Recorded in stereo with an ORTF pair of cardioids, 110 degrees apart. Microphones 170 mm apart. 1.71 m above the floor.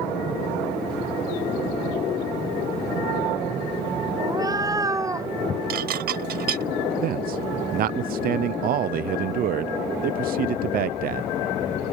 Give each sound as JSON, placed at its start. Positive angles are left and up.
{"t": 4.2, "sound": "a cat meowing", "azimuth_deg": -20}
{"t": 5.7, "sound": "dishes clattering", "azimuth_deg": -70}
{"t": 7.0, "sound": "a man speaking", "azimuth_deg": -60}